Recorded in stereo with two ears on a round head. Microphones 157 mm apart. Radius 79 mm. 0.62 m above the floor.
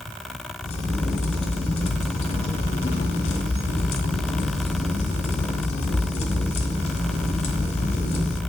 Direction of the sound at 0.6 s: 35° left (ahead or behind).